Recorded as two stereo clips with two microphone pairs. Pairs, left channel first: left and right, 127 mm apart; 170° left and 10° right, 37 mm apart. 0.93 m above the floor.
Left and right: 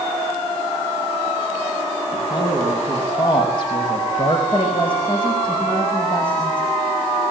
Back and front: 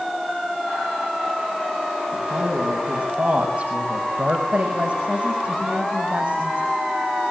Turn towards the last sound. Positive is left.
turn(degrees=45)